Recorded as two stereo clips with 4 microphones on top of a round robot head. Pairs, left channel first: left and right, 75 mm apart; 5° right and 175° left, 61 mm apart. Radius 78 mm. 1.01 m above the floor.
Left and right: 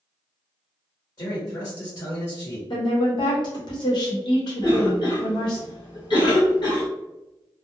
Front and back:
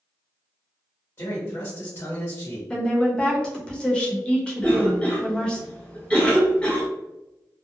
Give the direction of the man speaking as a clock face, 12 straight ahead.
11 o'clock.